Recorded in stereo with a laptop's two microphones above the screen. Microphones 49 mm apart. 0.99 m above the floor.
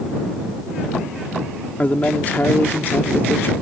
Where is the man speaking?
30° left (ahead or behind); by 3.5 s 50° left (ahead or behind).